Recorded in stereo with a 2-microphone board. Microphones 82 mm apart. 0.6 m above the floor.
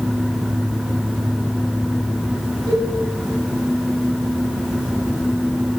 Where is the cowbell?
65° right (ahead or behind), 4.5 m.